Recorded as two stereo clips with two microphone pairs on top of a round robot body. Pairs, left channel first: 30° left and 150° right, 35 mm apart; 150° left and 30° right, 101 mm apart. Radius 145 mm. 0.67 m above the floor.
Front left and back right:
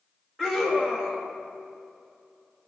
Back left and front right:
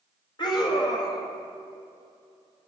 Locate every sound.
0.4 s a scream: 115° left, 1.5 m